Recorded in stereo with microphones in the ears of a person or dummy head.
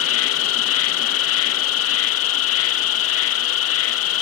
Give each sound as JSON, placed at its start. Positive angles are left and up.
{"t": 0.0, "sound": "an insect", "side_deg": 70}